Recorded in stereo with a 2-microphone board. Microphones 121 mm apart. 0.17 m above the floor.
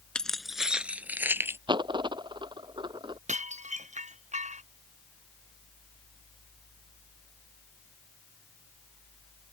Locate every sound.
0.1 s keys jangling: 5° left (ahead or behind); by 1.6 s 20° right (ahead or behind)
1.7 s a dropped coin: 40° right (ahead or behind)
3.3 s dishes clattering: 80° right